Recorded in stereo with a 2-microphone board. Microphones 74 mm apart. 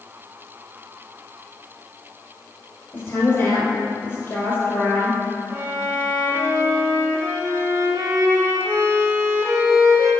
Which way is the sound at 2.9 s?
35° left (ahead or behind).